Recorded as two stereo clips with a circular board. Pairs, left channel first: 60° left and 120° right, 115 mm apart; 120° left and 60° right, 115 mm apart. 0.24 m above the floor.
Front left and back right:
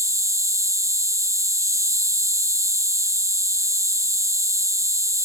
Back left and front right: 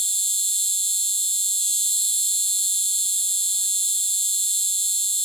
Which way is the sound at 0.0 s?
155° right.